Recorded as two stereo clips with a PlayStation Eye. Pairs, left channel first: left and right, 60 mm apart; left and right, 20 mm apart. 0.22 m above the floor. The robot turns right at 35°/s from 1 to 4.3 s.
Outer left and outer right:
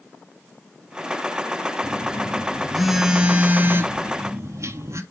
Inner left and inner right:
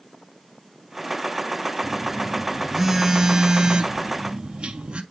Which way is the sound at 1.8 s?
150° left.